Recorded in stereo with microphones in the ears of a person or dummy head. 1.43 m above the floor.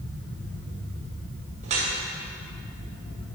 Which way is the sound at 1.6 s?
35° right (ahead or behind).